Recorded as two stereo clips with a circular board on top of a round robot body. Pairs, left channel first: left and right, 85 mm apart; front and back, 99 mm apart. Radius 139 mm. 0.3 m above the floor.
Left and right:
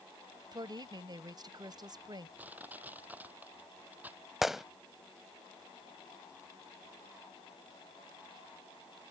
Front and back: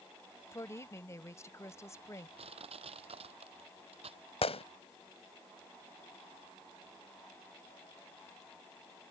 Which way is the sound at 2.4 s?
160° right.